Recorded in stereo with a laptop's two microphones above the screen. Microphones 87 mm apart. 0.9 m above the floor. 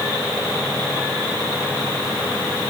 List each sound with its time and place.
Only background noise.